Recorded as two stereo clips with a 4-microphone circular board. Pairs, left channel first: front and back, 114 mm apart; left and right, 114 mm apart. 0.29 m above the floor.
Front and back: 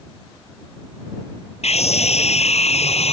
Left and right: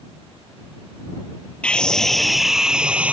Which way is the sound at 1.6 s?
10° left.